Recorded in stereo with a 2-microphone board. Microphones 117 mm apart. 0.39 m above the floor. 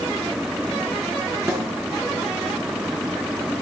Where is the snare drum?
20° right (ahead or behind), 7 m.